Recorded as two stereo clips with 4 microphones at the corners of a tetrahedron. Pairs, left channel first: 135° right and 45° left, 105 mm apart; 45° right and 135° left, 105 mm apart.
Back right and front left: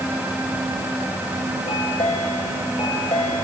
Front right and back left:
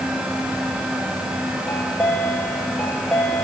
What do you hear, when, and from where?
1.7 s a chime: 125° right, 6 m